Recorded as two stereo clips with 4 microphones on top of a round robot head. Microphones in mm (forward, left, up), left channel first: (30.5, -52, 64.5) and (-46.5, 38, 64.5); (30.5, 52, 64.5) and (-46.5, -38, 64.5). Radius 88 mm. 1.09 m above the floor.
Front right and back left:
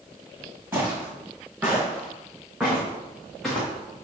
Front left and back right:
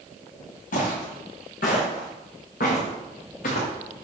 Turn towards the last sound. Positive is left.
turn(degrees=40)